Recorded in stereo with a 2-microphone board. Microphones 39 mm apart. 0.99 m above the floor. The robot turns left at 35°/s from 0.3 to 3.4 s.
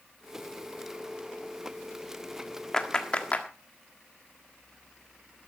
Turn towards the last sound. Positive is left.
turn(degrees=35)  # may be behind; listen again after turning